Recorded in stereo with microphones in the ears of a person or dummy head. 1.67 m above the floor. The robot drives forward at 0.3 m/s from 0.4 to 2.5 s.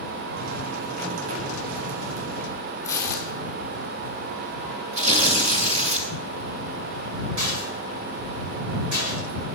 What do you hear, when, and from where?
2.8 s tearing paper: 15° left (ahead or behind), 2.5 m
4.9 s tearing paper: 35° right (ahead or behind), 2.5 m
7.4 s a rattle: 70° right (ahead or behind), 9 m